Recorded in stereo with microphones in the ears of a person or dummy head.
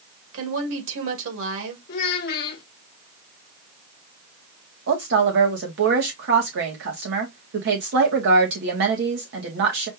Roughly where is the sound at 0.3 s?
Right.